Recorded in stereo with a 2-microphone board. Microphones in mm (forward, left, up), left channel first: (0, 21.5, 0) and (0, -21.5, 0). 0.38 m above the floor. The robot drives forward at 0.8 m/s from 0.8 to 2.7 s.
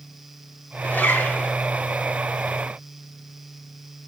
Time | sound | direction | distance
0.8 | a zipper | 50° left (ahead or behind) | 3.5 m